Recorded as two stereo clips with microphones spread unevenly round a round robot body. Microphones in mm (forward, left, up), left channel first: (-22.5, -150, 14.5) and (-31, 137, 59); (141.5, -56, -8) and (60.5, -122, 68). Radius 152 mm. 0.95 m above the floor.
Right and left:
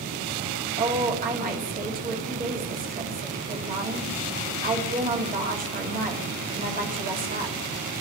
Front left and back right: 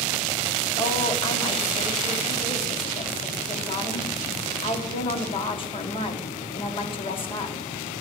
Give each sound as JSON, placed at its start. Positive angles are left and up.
{"t": 0.8, "sound": "a woman speaking", "azimuth_deg": 25, "distance_m": 2.0}